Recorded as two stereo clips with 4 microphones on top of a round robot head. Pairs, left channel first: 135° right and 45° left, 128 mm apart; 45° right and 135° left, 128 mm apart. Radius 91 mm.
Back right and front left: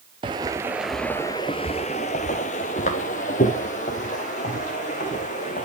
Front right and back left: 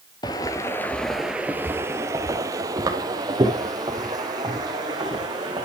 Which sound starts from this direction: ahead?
Footsteps, at 0.2 s.